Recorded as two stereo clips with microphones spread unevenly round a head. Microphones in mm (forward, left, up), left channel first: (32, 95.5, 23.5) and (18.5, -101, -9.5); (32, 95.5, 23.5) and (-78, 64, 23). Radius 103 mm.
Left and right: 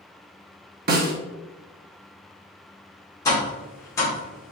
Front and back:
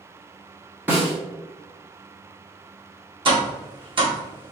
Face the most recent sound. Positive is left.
turn(degrees=165)